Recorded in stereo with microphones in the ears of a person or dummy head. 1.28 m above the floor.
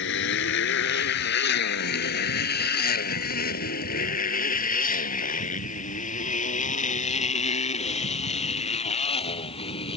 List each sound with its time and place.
0.0 s a motorcycle: 75° left (ahead or behind); by 10.0 s 40° left (ahead or behind)